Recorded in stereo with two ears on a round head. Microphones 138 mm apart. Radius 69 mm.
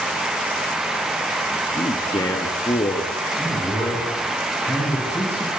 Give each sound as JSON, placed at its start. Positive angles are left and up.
{"t": 1.7, "sound": "a man speaking", "side_deg": 25, "distance_m": 1.1}
{"t": 3.4, "sound": "a man speaking", "side_deg": 15, "distance_m": 3.5}